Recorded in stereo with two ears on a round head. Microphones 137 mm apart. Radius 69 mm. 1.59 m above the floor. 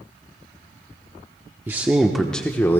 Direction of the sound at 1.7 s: 15° right (ahead or behind).